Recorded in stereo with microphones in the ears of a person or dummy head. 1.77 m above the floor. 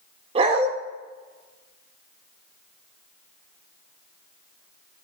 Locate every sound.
0.3 s a dog barking: 30° right (ahead or behind), 2.5 m